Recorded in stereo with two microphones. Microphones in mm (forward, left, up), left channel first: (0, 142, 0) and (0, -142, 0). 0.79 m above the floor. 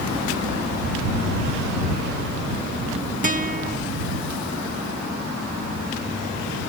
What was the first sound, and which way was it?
A guitar, 25° right (ahead or behind).